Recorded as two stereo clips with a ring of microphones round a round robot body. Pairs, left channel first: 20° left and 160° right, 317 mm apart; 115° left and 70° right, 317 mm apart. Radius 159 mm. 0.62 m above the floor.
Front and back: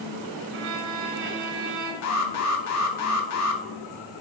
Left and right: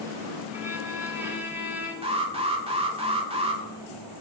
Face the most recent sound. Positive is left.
turn(degrees=0)